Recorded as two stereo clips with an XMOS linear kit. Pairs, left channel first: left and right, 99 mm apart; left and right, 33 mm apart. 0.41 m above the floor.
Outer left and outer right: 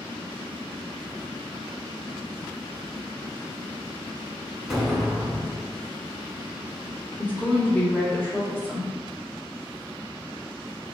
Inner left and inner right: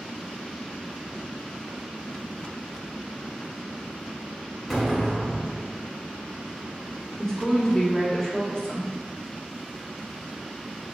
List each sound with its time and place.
4.7 s an explosion: centre (ahead or behind), 0.9 m
7.2 s a woman speaking: 20° left (ahead or behind), 1.0 m